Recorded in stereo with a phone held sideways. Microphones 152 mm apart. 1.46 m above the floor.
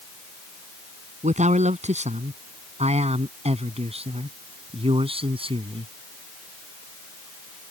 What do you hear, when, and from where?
1.2 s a man speaking: 50° right (ahead or behind); by 5.9 s 35° right (ahead or behind)